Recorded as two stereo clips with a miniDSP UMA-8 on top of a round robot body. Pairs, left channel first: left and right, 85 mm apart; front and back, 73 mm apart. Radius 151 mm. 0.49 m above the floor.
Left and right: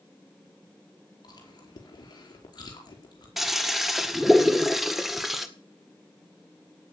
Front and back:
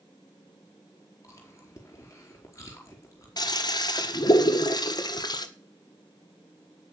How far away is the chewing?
About 5 m.